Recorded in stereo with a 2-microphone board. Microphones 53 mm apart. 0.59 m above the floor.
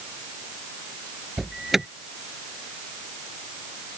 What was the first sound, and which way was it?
An alarm, 5° right (ahead or behind).